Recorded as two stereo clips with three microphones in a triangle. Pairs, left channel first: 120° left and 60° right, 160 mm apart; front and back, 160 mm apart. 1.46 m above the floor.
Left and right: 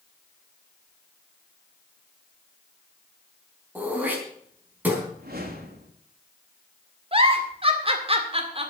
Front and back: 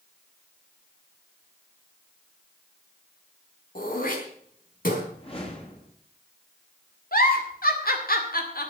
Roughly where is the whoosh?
Ahead right.